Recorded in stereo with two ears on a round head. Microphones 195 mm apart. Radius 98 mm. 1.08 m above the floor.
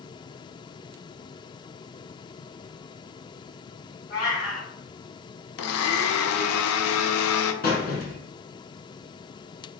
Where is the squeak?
45° left (ahead or behind), 1.7 m.